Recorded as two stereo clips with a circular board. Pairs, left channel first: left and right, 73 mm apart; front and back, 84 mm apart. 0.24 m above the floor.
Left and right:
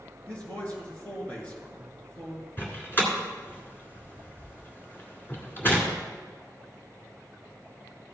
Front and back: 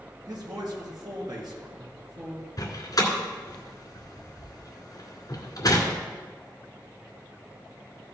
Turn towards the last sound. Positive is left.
turn(degrees=35)